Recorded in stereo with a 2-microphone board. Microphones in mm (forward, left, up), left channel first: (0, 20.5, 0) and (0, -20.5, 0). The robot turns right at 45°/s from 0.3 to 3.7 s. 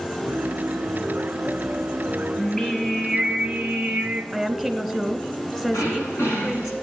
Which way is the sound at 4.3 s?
5° left (ahead or behind).